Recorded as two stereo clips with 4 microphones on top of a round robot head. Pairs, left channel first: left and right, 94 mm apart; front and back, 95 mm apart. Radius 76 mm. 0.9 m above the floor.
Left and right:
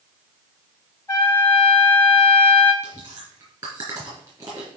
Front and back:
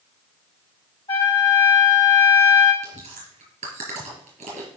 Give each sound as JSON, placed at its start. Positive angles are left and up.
{"t": 1.1, "sound": "a trumpet", "azimuth_deg": 30, "distance_m": 4.5}
{"t": 2.8, "sound": "chewing", "azimuth_deg": -155, "distance_m": 3.5}